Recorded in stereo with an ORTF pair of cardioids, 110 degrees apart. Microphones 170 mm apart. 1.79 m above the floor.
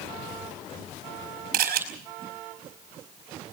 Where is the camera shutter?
65° right, 4.5 m.